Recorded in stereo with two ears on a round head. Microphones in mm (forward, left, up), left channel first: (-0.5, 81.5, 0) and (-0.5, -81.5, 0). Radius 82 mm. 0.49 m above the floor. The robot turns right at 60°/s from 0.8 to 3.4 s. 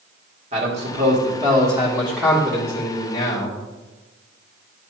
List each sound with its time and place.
0.5 s a man speaking: 85° right, 1.6 m; by 3.6 s 70° left, 1.6 m